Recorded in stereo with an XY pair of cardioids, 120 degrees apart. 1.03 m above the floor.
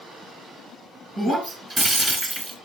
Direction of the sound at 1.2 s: 30° right.